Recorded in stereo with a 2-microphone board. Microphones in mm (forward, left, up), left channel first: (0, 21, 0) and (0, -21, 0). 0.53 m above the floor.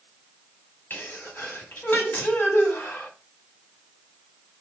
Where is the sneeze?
60° left (ahead or behind), 1.2 m.